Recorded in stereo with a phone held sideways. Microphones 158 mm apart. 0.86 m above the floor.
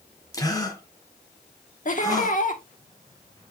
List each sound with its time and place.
0.3 s a gasp: 20° left (ahead or behind), 1.7 m
1.9 s laughter: 55° left (ahead or behind), 1.5 m